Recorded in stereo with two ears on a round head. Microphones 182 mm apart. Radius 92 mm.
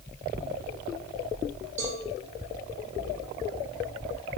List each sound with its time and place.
1.8 s a cowbell: 35° right (ahead or behind), 6 m